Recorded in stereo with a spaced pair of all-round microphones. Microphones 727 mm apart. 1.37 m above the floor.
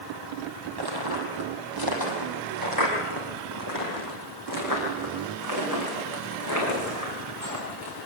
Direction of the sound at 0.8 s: 30° right (ahead or behind).